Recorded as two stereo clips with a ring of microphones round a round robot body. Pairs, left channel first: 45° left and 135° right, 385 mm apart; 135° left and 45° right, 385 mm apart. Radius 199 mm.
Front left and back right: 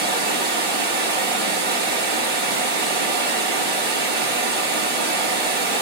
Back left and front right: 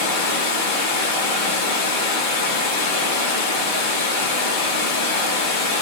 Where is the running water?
165° left, 1.0 m.